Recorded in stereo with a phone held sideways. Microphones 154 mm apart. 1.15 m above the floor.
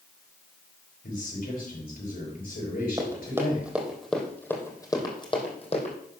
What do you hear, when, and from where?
1.0 s a man speaking: 80° left, 5 m
3.0 s running footsteps: 25° right (ahead or behind), 3 m; by 6.0 s 45° left (ahead or behind), 3 m